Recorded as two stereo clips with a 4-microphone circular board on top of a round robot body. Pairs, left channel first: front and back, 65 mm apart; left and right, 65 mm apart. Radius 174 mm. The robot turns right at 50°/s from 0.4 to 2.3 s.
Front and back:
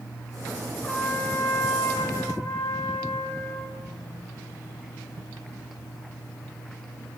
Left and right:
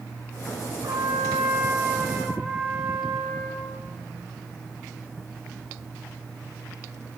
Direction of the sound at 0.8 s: 80° right.